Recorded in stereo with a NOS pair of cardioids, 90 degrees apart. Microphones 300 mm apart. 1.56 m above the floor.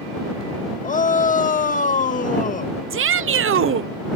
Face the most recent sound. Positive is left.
turn(degrees=-45)